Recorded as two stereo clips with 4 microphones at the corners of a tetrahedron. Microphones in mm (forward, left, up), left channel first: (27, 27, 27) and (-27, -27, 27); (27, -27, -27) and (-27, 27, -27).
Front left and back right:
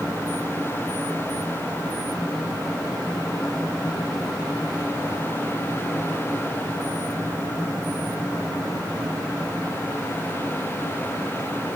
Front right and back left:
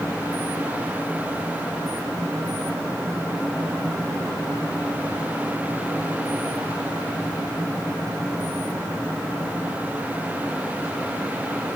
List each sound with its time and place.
Only background noise.